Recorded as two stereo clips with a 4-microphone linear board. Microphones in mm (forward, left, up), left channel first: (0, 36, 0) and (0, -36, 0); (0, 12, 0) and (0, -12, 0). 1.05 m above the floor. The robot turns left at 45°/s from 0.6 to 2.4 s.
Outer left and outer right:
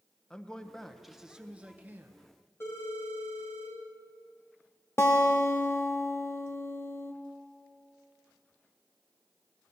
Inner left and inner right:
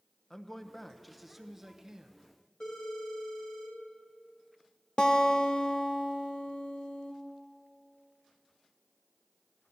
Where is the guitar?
35° left (ahead or behind), 0.9 m.